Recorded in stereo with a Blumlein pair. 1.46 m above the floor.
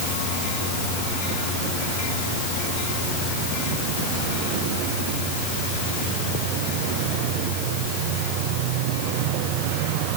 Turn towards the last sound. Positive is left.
No sound to turn to.